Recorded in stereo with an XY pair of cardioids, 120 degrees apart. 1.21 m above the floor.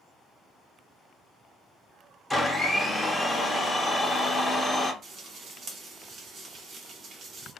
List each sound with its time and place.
2.3 s a blender: 5° left, 0.7 m
5.0 s frying: 55° right, 0.8 m